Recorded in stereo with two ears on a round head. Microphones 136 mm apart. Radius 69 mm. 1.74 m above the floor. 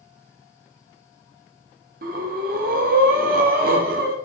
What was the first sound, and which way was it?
Breathing, 60° right (ahead or behind).